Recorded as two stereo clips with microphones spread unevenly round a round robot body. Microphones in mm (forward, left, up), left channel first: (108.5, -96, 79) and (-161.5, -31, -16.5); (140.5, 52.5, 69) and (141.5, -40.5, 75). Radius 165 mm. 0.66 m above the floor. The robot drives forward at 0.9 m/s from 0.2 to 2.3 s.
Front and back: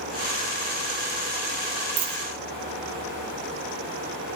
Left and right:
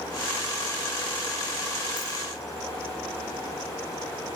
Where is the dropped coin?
145° left, 2.5 m; by 2.2 s 150° left, 2.5 m.